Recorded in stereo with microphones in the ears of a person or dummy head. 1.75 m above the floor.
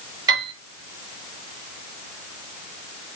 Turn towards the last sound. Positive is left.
turn(degrees=-25)  # may be behind; listen again after turning